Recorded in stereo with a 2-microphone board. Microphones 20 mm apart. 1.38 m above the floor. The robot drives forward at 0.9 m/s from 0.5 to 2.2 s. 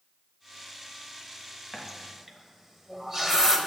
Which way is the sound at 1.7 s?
20° right (ahead or behind).